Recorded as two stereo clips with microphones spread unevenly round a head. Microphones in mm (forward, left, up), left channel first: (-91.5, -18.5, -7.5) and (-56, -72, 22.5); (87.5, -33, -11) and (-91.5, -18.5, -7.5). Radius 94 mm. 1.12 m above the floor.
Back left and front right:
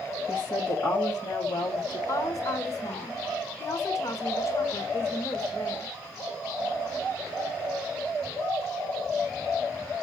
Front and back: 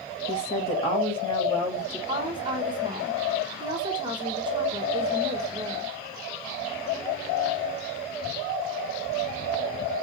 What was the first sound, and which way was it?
A woman speaking, 55° left.